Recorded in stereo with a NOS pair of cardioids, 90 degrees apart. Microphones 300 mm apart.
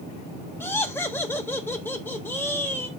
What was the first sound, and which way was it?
Laughter, 5° left.